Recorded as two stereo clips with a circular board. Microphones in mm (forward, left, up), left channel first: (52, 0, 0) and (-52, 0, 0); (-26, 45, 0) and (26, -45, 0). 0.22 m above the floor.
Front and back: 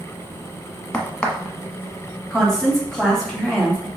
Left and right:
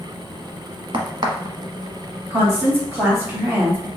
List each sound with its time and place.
0.9 s a crack: 75° right, 1.0 m
2.3 s a woman speaking: 80° right, 1.4 m